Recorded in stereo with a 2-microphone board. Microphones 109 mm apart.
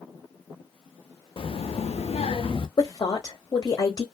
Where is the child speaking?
50° left (ahead or behind), 0.6 m; by 2.7 s 45° left (ahead or behind), 0.7 m.